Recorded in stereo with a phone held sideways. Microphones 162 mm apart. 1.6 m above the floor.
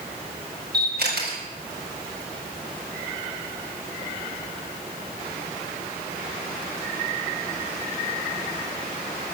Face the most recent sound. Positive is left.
turn(degrees=-85)